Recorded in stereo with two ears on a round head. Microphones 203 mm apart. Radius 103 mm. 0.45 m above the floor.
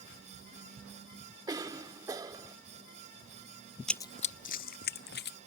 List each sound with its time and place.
1.5 s a cough: 15° right (ahead or behind)
3.9 s running footsteps: centre (ahead or behind); by 5.4 s 50° left (ahead or behind)